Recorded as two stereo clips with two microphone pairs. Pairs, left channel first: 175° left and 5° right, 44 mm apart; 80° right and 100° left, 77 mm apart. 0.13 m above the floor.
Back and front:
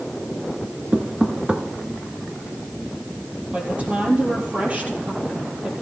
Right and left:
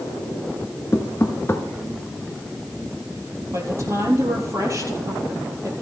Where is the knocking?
40° right, 1.3 m.